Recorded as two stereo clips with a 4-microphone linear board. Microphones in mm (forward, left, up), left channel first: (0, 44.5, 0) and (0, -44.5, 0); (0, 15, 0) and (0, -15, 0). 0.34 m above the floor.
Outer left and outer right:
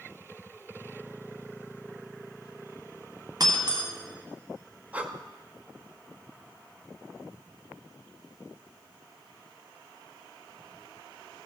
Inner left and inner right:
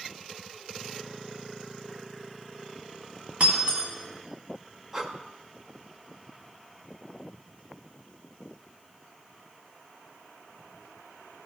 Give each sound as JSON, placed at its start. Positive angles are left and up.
{"t": 3.4, "sound": "breaking glass", "side_deg": -50, "distance_m": 1.4}
{"t": 4.9, "sound": "breathing", "side_deg": -15, "distance_m": 0.6}